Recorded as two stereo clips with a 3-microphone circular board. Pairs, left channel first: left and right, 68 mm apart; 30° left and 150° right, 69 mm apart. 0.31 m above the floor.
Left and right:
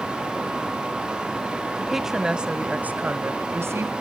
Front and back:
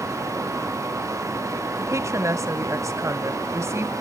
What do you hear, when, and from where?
1.8 s a woman speaking: straight behind, 1.6 m; by 3.9 s 115° right, 1.6 m